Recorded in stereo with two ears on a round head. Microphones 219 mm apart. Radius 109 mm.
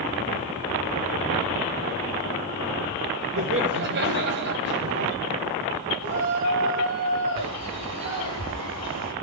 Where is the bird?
75° right (ahead or behind), 4 m.